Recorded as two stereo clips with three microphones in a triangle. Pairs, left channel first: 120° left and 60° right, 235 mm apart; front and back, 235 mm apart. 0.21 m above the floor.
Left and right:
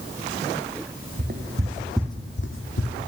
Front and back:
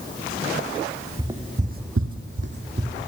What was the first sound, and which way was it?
Footsteps, 105° right.